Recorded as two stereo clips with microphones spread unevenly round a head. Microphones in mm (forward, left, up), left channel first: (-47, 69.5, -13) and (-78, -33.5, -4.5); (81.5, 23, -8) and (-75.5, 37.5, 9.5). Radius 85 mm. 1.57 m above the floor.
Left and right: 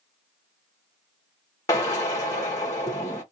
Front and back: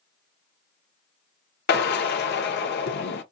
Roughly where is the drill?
Ahead.